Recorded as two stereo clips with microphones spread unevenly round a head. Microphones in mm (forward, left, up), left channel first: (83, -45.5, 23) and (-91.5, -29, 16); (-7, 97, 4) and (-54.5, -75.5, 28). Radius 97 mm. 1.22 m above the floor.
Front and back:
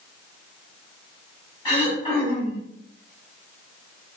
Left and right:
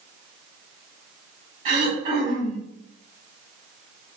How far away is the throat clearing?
About 1.7 m.